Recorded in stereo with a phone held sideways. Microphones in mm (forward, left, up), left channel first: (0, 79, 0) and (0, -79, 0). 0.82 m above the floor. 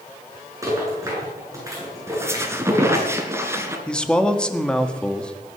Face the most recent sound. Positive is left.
turn(degrees=5)  # may be behind; listen again after turning